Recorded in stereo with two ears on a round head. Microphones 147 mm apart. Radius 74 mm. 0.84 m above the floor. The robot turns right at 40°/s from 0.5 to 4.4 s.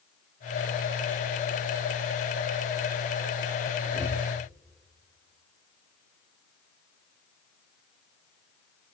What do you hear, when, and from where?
3.9 s breathing: 40° right (ahead or behind), 2.5 m; by 4.2 s 55° right (ahead or behind), 2.5 m